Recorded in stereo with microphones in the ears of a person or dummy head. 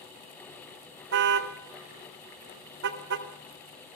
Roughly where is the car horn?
Right.